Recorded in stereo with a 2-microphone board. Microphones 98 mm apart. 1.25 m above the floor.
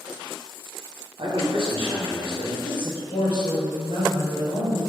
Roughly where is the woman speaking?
Left.